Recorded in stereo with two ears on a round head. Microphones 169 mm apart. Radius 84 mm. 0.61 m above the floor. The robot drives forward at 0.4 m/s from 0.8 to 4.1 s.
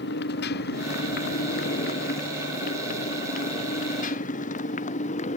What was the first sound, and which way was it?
A motorcycle, 60° left (ahead or behind).